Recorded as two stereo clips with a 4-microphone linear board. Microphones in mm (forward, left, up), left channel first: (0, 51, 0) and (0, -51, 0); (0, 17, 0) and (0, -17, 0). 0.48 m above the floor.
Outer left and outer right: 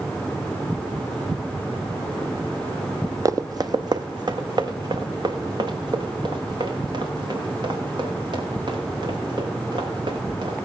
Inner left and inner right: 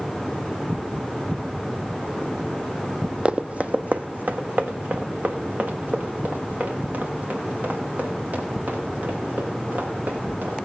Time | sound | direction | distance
3.2 | running footsteps | 35° right (ahead or behind) | 0.6 m